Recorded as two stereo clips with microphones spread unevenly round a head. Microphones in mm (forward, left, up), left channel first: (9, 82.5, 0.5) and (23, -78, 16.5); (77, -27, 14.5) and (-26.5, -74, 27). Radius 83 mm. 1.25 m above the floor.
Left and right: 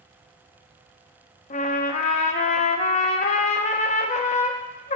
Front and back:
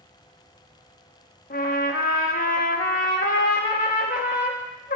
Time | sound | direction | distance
1.5 | a trumpet | 45° left | 0.5 m